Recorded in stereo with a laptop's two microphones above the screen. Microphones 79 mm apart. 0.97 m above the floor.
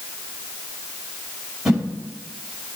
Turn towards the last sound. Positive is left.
turn(degrees=-5)  # may be behind; listen again after turning